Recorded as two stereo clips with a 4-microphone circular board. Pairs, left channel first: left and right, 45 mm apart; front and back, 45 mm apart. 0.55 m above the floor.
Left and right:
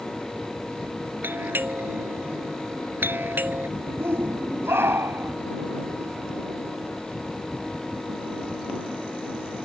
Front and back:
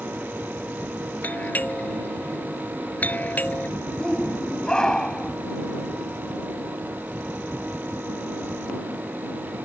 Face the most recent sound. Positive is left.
turn(degrees=-75)